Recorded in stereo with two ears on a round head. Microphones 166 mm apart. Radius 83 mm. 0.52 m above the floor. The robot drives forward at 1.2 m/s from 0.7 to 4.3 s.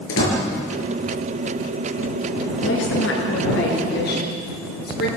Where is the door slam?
75° left (ahead or behind), 6 m.